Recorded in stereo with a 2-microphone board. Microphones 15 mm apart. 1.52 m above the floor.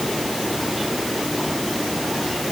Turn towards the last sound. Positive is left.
No sound to turn to.